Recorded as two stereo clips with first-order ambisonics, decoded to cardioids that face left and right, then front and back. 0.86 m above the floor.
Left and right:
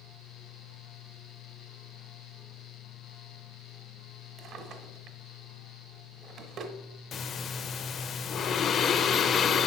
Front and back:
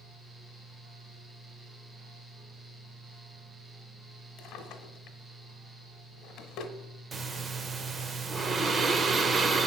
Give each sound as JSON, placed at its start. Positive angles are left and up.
{"t": 4.4, "sound": "a drawer", "azimuth_deg": -40, "distance_m": 1.2}
{"t": 7.1, "sound": "breathing", "azimuth_deg": 120, "distance_m": 0.6}